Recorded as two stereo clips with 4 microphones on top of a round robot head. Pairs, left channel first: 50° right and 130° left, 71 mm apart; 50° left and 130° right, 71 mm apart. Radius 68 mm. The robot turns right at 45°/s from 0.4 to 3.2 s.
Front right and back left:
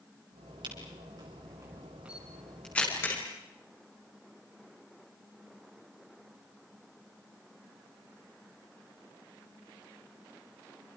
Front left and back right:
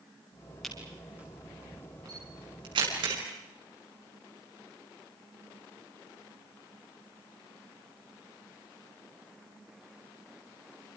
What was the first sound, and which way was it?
A camera shutter, 140° left.